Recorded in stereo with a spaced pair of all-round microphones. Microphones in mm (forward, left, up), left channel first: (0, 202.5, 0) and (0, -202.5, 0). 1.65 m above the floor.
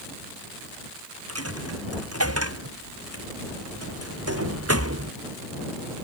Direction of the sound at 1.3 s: 35° right (ahead or behind).